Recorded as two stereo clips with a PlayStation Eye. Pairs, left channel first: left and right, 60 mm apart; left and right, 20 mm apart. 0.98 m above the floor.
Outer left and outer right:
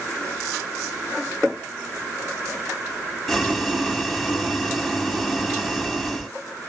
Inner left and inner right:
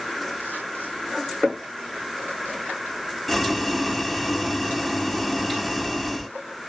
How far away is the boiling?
About 1.1 m.